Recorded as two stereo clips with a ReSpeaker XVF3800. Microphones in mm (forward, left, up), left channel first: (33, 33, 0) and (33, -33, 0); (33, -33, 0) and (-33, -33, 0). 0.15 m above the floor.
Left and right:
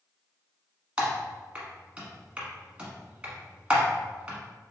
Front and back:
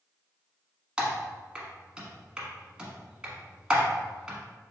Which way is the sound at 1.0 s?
125° right.